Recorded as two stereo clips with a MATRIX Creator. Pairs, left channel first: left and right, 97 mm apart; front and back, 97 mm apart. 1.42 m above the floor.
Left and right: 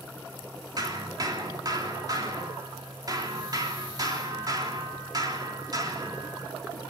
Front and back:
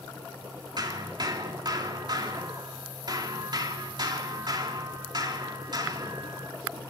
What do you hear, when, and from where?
0.8 s hammering: 140° right, 3 m